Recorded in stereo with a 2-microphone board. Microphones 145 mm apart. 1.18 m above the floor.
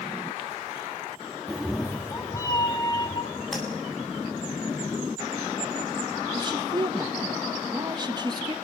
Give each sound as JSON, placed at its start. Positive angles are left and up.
{"t": 1.5, "sound": "a cat meowing", "side_deg": -10, "distance_m": 1.0}
{"t": 3.5, "sound": "tapping", "side_deg": 0, "distance_m": 9.0}
{"t": 6.3, "sound": "a woman speaking", "side_deg": -30, "distance_m": 1.7}